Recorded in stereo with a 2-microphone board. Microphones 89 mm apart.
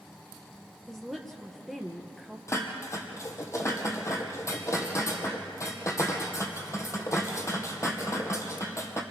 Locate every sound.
0.9 s a woman speaking: centre (ahead or behind), 2 m
2.5 s dishes clattering: 35° left (ahead or behind), 2 m